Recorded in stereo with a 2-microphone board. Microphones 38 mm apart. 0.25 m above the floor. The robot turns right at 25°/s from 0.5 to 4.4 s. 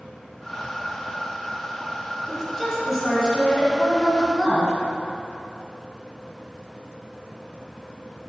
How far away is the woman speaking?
About 1.4 m.